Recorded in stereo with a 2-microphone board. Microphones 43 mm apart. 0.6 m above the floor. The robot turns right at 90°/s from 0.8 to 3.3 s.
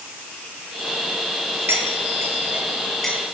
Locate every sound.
1.7 s cutlery clinking: 65° right (ahead or behind), 7.5 m; by 3.2 s 20° left (ahead or behind), 7.5 m